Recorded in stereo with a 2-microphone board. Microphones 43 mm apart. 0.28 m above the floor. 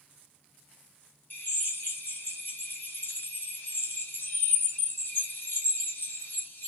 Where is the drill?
55° left (ahead or behind), 1.2 m.